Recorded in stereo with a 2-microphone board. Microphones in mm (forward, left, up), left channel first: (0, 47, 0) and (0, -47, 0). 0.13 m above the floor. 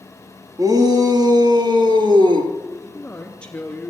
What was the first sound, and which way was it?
A shout, 40° right (ahead or behind).